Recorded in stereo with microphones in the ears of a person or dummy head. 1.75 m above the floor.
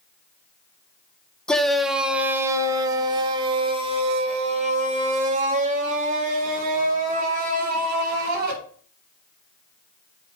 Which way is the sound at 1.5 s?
10° left (ahead or behind).